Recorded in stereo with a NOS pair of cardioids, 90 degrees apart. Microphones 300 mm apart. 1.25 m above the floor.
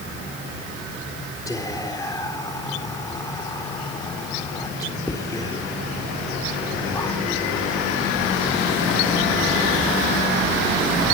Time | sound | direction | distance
1.5 | whispering | 10° left | 3.5 m